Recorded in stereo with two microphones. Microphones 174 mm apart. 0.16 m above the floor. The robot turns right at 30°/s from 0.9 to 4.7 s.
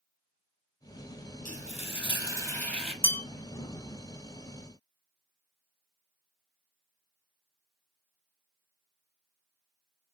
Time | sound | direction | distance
1.4 | frying | 135° left | 0.9 m
3.0 | a bell | 10° left (ahead or behind) | 0.7 m